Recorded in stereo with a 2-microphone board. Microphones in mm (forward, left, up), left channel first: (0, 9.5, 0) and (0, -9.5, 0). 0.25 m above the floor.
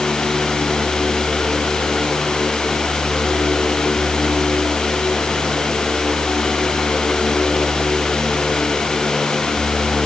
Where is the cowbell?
No cowbell in this recording.